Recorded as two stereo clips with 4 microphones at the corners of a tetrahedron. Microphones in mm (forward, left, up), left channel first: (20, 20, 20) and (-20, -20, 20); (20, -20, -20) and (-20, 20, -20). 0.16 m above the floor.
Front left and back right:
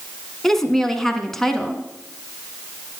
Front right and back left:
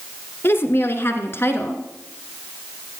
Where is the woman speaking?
35° right, 1.6 m.